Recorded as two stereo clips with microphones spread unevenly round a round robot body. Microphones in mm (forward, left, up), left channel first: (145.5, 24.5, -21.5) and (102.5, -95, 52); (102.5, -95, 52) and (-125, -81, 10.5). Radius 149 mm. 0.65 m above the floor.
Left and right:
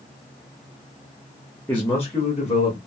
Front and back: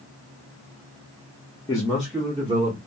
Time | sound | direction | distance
1.7 | a man speaking | 70° left | 0.6 m